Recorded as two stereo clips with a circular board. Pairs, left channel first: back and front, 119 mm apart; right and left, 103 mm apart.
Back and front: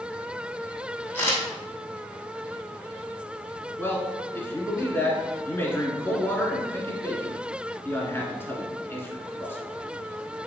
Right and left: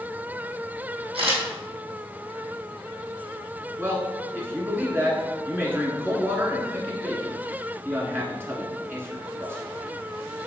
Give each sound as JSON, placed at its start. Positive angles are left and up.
{"t": 1.1, "sound": "a camera shutter", "azimuth_deg": 110, "distance_m": 2.5}
{"t": 3.8, "sound": "a man speaking", "azimuth_deg": 130, "distance_m": 1.5}